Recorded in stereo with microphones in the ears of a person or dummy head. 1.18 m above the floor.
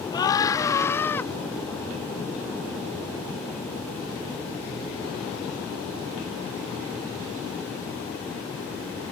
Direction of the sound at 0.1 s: 20° left (ahead or behind).